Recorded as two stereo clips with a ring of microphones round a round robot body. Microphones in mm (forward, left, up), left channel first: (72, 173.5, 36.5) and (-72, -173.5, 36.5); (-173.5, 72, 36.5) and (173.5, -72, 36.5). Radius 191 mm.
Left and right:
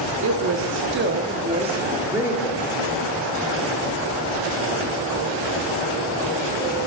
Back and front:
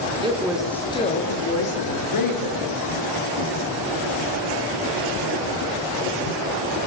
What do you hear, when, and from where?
0.2 s a woman speaking: 90° right, 0.9 m; by 2.6 s 160° left, 1.3 m